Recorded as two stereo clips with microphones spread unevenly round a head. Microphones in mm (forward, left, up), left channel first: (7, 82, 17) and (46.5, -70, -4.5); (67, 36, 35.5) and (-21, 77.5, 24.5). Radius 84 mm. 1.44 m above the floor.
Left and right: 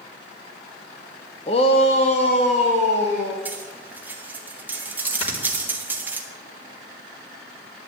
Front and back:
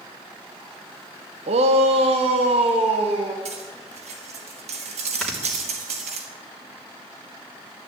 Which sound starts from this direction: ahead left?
Snoring, at 5.2 s.